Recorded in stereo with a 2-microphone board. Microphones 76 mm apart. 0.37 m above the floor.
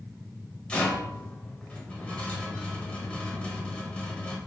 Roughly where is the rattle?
Centre.